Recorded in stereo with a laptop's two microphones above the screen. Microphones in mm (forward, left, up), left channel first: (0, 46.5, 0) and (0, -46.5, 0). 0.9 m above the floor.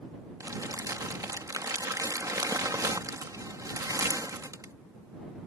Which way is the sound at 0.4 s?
40° right (ahead or behind).